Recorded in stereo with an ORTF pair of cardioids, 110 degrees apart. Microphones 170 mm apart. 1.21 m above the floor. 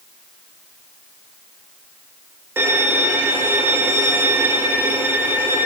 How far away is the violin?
About 0.8 m.